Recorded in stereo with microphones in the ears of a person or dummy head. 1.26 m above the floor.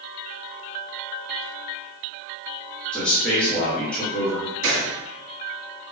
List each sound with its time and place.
2.9 s a man speaking: 5° left (ahead or behind), 0.9 m
4.6 s a gunshot: 65° right (ahead or behind), 1.5 m